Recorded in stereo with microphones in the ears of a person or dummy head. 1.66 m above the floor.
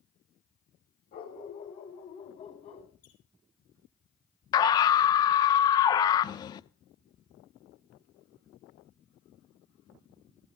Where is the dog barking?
35° left (ahead or behind), 2.0 m; by 2.9 s 30° left (ahead or behind), 3.5 m.